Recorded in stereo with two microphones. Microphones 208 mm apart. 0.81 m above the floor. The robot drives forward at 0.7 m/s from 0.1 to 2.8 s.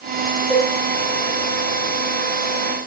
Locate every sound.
0.5 s a cowbell: 10° left (ahead or behind), 2 m